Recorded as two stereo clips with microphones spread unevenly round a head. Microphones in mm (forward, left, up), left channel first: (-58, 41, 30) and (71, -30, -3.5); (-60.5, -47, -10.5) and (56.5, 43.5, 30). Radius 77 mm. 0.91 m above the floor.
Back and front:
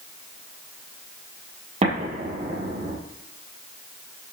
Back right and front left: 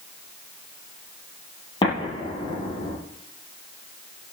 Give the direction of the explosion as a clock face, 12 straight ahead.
3 o'clock.